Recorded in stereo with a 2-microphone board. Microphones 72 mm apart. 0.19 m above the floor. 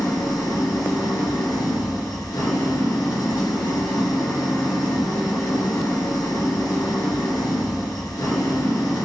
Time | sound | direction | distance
0.0 | an engine running | 65° left (ahead or behind) | 2 m